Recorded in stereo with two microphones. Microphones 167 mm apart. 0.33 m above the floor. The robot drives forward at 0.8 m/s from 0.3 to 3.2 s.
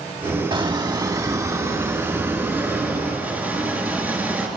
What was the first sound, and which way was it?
A squeak, 35° right (ahead or behind).